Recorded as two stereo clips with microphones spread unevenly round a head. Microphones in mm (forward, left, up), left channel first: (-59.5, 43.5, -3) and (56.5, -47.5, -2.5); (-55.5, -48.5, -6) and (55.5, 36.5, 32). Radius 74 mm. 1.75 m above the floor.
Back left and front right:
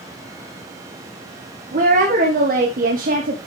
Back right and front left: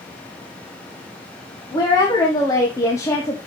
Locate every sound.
1.7 s a woman speaking: 75° right, 2 m; by 3.5 s 70° right, 1.1 m